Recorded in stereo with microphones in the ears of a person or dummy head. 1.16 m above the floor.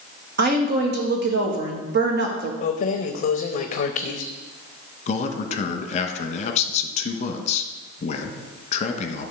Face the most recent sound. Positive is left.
turn(degrees=40)  # may be behind; listen again after turning